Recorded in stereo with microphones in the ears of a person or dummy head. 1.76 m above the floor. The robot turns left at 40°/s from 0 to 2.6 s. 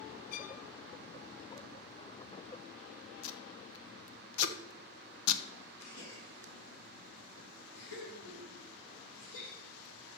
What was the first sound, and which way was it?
A violin, 50° left (ahead or behind).